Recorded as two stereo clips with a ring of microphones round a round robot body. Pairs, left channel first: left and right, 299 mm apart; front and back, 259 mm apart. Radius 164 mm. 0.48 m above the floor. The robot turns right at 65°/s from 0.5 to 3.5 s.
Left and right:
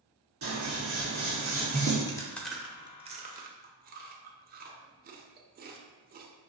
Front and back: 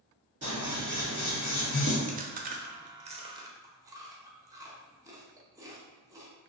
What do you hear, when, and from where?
0.4 s scissors: 115° right, 1.7 m; by 2.0 s 15° right, 1.7 m
2.1 s chewing: 155° left, 0.7 m; by 6.3 s 115° right, 0.7 m